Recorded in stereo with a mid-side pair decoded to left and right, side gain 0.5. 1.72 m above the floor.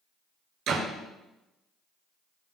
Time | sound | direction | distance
0.7 | a door slam | 70° right | 5 m